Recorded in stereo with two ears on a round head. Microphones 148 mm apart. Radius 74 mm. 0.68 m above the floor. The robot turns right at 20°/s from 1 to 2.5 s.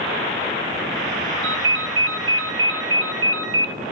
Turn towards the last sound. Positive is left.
turn(degrees=-80)